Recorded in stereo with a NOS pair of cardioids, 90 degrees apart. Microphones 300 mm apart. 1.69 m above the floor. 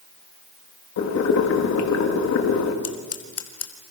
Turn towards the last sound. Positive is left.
turn(degrees=55)